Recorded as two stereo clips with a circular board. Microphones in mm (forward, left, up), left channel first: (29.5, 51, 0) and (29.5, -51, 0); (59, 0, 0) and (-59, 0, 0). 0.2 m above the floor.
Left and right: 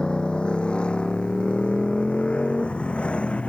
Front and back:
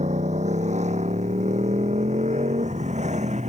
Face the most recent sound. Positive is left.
turn(degrees=170)